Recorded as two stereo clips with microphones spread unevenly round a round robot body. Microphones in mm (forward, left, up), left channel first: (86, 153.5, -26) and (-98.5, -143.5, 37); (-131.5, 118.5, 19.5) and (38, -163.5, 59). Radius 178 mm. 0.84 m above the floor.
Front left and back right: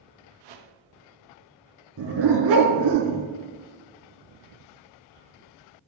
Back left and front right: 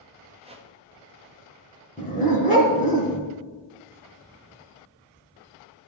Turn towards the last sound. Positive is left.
turn(degrees=-170)